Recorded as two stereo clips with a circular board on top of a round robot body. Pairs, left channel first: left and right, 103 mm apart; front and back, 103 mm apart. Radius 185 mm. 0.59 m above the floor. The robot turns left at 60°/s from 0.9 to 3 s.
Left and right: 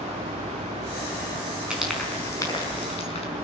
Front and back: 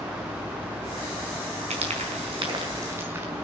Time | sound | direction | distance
1.7 | frying | 170° right | 5 m